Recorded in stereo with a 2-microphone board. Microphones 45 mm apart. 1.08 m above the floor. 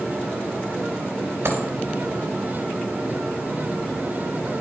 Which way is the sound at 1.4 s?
65° right (ahead or behind).